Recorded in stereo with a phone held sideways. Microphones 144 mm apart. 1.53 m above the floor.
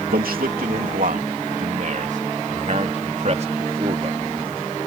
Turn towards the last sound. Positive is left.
turn(degrees=-40)  # may be behind; listen again after turning